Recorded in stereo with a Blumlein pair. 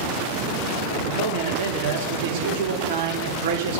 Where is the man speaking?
45° right, 3.5 m.